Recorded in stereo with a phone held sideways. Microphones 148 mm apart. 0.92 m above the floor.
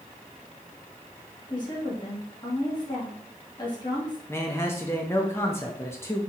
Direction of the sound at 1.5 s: 30° left (ahead or behind).